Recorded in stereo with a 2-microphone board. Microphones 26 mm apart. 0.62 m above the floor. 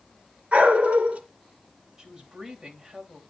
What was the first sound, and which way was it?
A dog barking, 50° right (ahead or behind).